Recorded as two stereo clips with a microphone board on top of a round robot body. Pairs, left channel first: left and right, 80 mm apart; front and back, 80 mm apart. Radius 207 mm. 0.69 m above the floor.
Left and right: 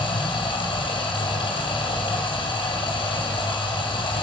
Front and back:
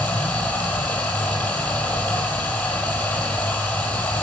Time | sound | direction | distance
0.0 | running water | 70° left | 2 m